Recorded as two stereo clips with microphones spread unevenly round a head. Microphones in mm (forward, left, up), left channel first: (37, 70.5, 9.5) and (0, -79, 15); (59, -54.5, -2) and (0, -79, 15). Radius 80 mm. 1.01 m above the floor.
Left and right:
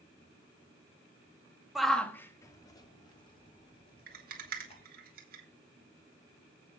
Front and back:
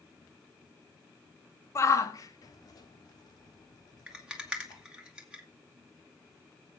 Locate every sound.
1.8 s a shout: 15° right, 1.3 m; by 4.8 s 25° left, 5 m
4.1 s a rattle: 80° right, 2.5 m